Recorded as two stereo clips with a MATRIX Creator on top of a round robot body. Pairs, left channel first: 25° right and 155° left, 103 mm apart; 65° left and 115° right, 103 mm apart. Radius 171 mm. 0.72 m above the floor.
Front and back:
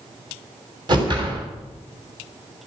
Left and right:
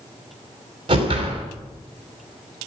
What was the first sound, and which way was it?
A whoosh, 155° right.